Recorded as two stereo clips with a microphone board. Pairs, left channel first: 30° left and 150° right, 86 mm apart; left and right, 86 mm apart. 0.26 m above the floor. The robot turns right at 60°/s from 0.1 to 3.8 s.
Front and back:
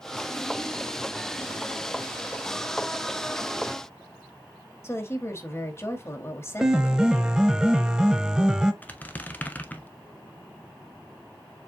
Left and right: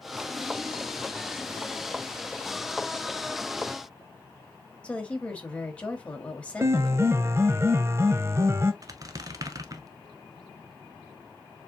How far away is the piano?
About 0.5 m.